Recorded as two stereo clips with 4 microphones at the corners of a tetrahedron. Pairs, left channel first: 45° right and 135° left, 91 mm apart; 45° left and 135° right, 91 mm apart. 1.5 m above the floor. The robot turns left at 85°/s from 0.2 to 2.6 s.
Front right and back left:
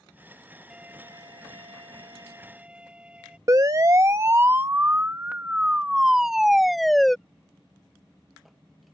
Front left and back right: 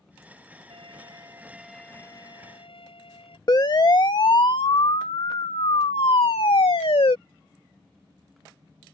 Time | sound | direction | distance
0.7 | a violin | 140° right | ?
3.5 | a siren | 90° left | ?